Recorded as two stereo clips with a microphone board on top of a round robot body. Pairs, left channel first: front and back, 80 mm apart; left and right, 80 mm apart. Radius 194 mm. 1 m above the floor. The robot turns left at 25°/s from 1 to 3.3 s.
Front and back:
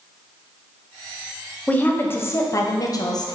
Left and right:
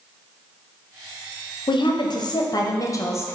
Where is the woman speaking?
75° left, 0.6 m; by 3.4 s 35° left, 0.6 m.